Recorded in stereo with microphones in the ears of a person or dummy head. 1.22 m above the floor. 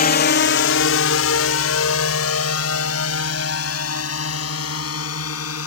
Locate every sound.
0.0 s a drone: 45° left (ahead or behind); by 5.7 s 85° left